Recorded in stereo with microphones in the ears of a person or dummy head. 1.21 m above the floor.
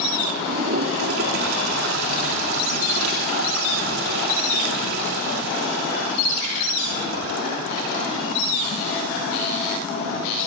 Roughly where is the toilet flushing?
Right.